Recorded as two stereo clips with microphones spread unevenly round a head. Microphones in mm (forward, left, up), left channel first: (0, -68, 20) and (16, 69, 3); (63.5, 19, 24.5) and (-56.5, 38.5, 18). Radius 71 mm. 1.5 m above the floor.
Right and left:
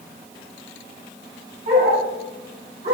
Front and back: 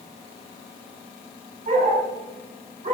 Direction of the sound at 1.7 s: 135° left.